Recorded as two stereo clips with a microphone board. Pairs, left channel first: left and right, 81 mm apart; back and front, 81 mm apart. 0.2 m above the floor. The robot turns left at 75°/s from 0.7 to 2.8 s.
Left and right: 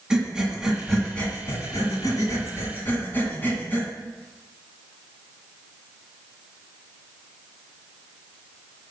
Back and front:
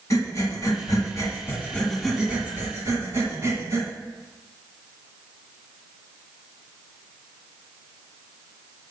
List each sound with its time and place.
0.1 s breathing: 165° right, 1.6 m; by 3.9 s 35° left, 1.6 m